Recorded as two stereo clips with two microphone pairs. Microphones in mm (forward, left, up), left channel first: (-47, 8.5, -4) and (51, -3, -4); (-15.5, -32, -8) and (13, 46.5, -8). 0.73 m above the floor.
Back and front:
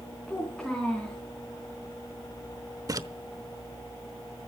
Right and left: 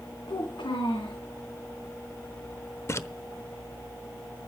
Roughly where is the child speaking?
Right.